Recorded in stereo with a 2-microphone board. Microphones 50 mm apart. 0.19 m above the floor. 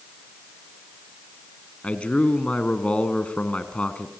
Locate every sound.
1.8 s a man speaking: 25° left (ahead or behind), 2 m